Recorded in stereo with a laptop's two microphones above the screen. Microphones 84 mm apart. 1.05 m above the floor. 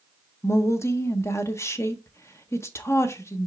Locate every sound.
0.4 s a woman speaking: 30° left (ahead or behind), 0.7 m